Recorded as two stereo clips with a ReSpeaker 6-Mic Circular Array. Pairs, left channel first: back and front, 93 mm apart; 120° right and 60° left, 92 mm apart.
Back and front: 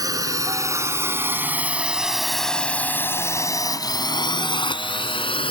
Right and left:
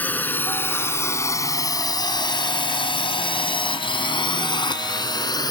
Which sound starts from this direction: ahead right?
A drone, at 0.0 s.